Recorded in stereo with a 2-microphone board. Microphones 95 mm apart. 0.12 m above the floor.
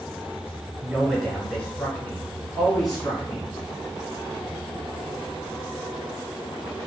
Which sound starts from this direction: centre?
A man speaking, at 0.8 s.